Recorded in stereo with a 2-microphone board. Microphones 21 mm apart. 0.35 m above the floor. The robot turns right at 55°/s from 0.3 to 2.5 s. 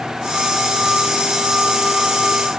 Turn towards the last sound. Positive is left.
No sound to turn to.